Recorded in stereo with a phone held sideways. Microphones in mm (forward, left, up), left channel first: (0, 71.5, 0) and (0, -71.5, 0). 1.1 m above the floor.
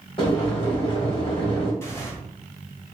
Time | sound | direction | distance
0.2 | boiling | 40° left (ahead or behind) | 1.3 m
1.8 | tearing paper | 15° left (ahead or behind) | 1.0 m